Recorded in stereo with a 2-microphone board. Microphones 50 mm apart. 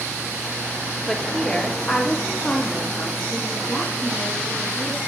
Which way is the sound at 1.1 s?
10° left (ahead or behind).